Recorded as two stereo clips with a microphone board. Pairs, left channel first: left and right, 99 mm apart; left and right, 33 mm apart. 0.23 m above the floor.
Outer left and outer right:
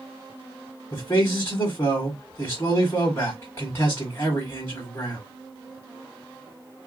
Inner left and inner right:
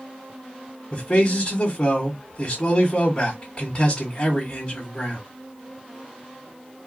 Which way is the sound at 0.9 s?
25° left (ahead or behind).